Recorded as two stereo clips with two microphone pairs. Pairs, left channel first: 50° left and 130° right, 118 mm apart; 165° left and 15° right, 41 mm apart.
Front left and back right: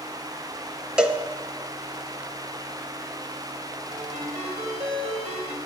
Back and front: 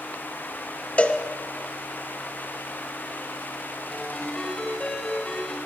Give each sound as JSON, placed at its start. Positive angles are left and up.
{"t": 1.0, "sound": "a cowbell", "azimuth_deg": 150, "distance_m": 0.8}
{"t": 3.9, "sound": "a ringtone", "azimuth_deg": -125, "distance_m": 3.5}